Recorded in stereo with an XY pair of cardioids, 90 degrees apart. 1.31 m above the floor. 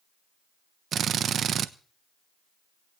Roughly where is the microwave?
I don't hear a microwave.